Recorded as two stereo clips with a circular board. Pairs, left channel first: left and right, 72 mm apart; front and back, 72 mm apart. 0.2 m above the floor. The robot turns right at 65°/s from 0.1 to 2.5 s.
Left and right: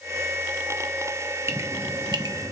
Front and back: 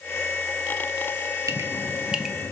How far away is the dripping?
About 1.3 m.